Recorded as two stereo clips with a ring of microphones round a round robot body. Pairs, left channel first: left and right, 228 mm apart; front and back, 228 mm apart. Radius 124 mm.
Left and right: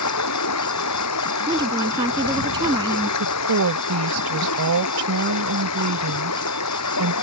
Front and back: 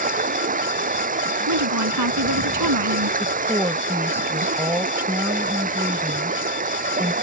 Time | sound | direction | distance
0.0 | running water | 125° left | ?
1.5 | a woman speaking | 165° right | ?
3.2 | a woman speaking | 100° right | ?